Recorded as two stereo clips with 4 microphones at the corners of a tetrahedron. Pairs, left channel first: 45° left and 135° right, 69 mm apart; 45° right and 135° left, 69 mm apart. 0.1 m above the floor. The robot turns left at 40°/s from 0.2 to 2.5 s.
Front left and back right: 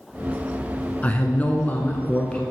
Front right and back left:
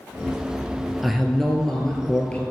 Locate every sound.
1.0 s a man speaking: 50° left, 1.1 m; by 2.4 s 5° right, 1.1 m